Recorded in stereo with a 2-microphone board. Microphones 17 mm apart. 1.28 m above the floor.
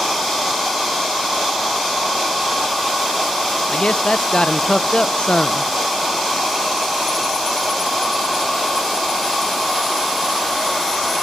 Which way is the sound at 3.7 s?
75° left (ahead or behind).